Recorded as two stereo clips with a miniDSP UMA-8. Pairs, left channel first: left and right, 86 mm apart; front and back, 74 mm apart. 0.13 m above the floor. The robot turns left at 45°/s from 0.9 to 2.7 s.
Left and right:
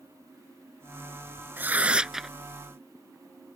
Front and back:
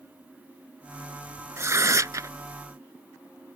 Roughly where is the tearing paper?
Behind right.